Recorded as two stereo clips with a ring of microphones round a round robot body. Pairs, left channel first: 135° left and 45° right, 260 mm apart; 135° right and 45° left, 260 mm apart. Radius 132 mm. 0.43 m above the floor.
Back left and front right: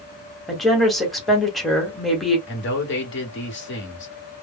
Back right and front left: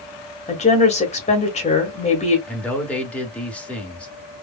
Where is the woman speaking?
135° right, 1.3 m.